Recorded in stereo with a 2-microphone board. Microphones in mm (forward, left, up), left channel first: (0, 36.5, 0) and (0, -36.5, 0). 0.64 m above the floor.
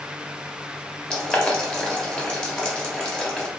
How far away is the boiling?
About 1.0 m.